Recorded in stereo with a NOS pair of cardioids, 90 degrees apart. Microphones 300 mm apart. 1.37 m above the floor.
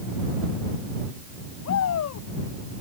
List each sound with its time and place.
1.6 s a shout: 60° left